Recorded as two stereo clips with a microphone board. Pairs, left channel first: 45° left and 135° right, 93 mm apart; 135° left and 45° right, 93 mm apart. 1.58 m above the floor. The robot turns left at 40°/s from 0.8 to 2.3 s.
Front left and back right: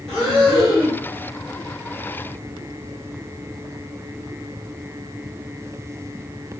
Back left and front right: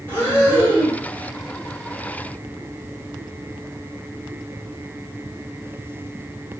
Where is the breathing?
125° left, 1.3 m; by 1.0 s 115° left, 1.3 m.